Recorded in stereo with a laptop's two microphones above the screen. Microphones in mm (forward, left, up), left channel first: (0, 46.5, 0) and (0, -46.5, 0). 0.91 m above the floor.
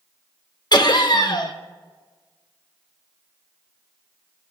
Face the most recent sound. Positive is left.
turn(degrees=50)  # may be behind; listen again after turning